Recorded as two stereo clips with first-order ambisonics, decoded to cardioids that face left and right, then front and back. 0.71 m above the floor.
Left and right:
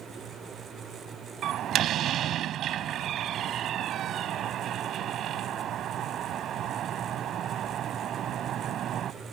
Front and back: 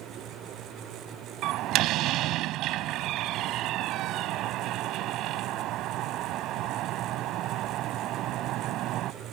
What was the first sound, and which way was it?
A door slam, 140° right.